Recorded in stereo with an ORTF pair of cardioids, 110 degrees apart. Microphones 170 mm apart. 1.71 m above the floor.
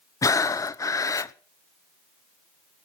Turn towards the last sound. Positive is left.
turn(degrees=20)